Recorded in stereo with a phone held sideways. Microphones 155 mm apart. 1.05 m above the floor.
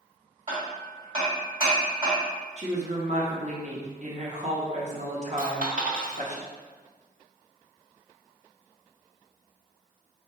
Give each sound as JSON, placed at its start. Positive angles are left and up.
{"t": 0.5, "sound": "hammering", "side_deg": -40, "distance_m": 1.9}
{"t": 2.6, "sound": "a woman speaking", "side_deg": -50, "distance_m": 0.9}
{"t": 5.4, "sound": "a dropped coin", "side_deg": -65, "distance_m": 1.2}